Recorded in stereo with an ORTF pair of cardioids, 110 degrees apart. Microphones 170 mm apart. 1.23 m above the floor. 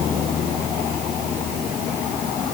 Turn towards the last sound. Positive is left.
No sound to turn to.